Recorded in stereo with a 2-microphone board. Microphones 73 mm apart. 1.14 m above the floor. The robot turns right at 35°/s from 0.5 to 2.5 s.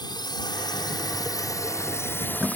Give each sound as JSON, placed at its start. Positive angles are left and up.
{"t": 0.0, "sound": "a drone", "side_deg": 70}